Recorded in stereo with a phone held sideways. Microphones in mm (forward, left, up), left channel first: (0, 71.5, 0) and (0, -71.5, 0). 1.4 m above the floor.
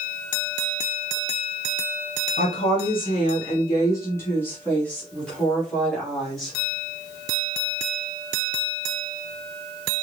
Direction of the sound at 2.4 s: 50° left (ahead or behind).